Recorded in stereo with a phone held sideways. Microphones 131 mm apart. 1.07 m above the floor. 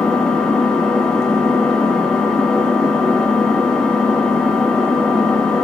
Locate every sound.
0.0 s an engine running: 5° left (ahead or behind), 0.9 m